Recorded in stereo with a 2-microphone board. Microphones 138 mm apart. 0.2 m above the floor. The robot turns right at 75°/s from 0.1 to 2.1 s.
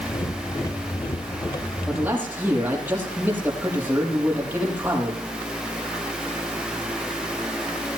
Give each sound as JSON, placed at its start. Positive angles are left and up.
{"t": 1.9, "sound": "a man speaking", "side_deg": 5, "distance_m": 7.0}